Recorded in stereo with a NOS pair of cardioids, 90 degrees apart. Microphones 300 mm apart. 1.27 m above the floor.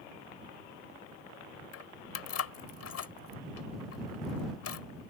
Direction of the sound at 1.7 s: 55° left.